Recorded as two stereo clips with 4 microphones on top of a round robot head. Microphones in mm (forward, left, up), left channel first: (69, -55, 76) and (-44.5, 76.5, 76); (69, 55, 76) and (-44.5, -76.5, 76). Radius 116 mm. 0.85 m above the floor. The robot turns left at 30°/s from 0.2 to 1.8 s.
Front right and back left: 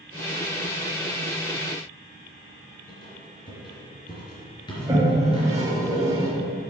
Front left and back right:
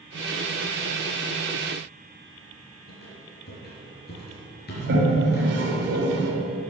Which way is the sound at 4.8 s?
155° right.